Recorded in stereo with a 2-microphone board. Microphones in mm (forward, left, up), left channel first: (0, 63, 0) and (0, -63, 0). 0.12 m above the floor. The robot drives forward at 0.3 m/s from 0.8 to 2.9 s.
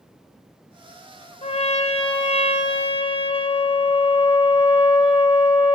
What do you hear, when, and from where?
1.4 s a trumpet: 55° left (ahead or behind), 1.0 m; by 5.8 s 45° left (ahead or behind), 1.2 m